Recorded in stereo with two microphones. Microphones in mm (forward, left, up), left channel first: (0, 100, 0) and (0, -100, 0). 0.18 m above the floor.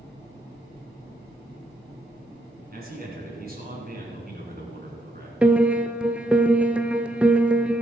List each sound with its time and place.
2.7 s a man speaking: 45° right (ahead or behind), 2 m
5.4 s a piano: 5° right (ahead or behind), 0.6 m